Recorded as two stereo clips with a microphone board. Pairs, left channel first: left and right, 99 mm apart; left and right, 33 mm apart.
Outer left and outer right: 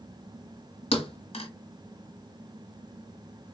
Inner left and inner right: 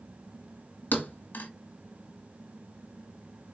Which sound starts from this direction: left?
A thud, at 0.9 s.